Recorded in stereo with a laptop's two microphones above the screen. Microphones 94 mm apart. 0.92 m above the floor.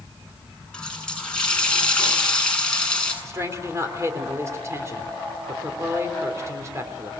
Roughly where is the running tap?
Centre.